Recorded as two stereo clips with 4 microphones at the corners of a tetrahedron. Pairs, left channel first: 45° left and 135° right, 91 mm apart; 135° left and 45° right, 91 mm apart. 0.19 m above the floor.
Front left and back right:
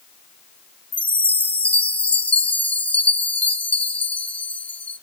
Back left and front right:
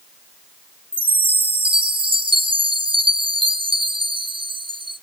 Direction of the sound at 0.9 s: 30° right.